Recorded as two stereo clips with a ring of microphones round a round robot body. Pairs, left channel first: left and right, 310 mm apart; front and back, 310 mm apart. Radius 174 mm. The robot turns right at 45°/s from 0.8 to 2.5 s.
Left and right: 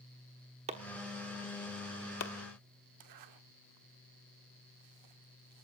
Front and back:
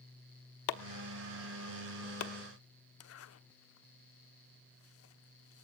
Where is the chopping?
15° right, 1.0 m; by 2.3 s 50° left, 1.0 m.